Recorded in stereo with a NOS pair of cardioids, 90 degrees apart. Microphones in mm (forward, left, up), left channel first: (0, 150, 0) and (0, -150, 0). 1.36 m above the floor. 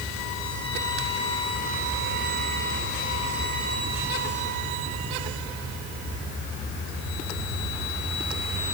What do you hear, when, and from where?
Only background noise.